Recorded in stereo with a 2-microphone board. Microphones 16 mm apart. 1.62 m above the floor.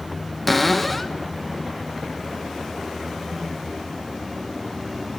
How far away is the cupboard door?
About 0.8 m.